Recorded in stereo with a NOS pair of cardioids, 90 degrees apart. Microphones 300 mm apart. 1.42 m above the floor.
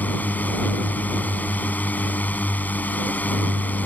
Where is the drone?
5° left.